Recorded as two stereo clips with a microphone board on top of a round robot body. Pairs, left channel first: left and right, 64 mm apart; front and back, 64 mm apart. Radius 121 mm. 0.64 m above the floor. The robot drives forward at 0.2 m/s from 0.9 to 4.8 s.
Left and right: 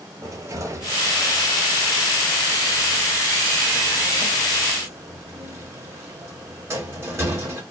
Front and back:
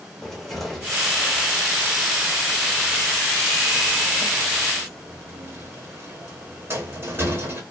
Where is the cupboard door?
90° right, 1.1 m; by 7.6 s 130° right, 1.3 m.